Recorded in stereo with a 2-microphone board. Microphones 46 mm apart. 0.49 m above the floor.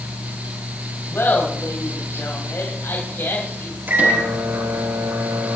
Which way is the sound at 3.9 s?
45° right (ahead or behind).